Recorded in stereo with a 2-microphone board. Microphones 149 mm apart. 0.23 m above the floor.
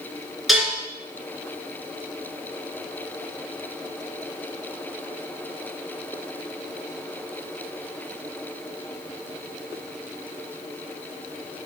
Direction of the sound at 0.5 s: Centre (ahead or behind).